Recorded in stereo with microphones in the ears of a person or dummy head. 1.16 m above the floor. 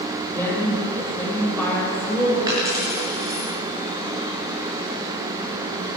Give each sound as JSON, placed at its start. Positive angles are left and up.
{"t": 0.3, "sound": "a woman speaking", "side_deg": 15, "distance_m": 5.0}
{"t": 2.5, "sound": "a dropped coin", "side_deg": -20, "distance_m": 5.5}